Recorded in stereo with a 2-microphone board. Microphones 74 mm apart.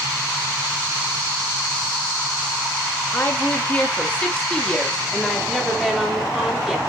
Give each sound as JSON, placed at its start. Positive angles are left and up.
{"t": 3.1, "sound": "a woman speaking", "side_deg": 30, "distance_m": 3.0}